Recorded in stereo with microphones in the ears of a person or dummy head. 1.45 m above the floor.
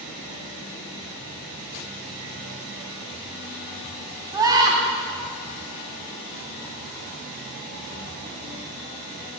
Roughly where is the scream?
Centre.